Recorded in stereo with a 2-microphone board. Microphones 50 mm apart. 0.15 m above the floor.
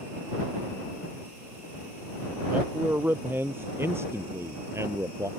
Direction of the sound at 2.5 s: 35° right (ahead or behind).